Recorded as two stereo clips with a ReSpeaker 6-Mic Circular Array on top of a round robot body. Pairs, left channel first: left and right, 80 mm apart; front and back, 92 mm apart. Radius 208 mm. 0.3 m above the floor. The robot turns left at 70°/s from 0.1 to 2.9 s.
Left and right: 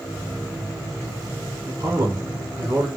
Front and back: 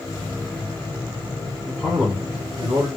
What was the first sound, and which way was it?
A man speaking, 70° right.